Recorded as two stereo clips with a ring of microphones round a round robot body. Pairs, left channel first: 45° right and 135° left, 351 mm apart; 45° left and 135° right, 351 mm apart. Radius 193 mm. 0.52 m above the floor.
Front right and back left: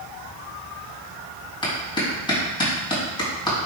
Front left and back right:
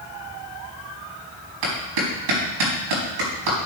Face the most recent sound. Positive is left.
turn(degrees=-125)